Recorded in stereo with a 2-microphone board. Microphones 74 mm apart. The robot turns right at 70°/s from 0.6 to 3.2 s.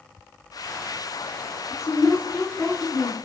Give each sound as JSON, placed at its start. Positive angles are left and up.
{"t": 1.7, "sound": "a woman speaking", "azimuth_deg": 85, "distance_m": 1.4}